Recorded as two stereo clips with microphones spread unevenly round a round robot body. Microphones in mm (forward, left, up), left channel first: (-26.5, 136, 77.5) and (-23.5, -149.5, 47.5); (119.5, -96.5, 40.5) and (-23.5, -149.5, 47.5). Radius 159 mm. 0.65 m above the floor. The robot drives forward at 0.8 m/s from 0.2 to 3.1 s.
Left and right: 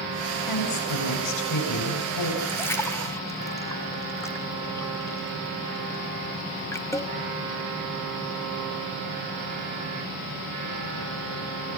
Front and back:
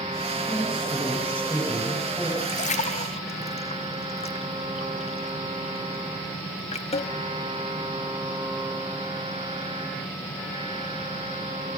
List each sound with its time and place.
0.5 s a woman speaking: 100° left, 6 m; by 2.3 s 110° left, 6.5 m
2.4 s a splash: 5° left, 1.8 m; by 7.1 s 10° left, 1.4 m